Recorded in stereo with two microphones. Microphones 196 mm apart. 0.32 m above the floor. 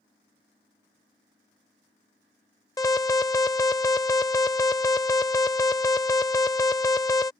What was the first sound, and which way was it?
An alarm, 15° left (ahead or behind).